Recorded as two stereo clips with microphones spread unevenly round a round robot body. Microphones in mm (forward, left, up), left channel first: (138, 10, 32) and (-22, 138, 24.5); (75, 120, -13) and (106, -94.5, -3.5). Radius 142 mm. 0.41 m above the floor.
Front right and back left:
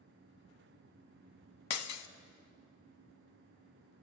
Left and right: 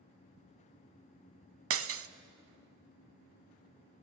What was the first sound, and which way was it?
Breaking glass, 55° right.